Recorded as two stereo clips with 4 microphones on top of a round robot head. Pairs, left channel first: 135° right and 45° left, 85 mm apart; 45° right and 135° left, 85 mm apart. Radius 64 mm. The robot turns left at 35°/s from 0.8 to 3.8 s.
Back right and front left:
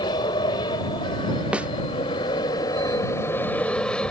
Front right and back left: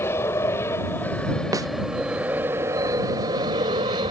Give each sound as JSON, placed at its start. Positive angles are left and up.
{"t": 0.0, "sound": "an aircraft", "azimuth_deg": -105}
{"t": 1.5, "sound": "a snare drum", "azimuth_deg": 120}